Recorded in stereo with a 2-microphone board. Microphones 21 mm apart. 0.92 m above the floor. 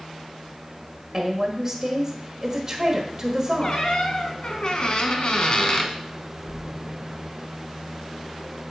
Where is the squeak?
45° left (ahead or behind), 1.1 m.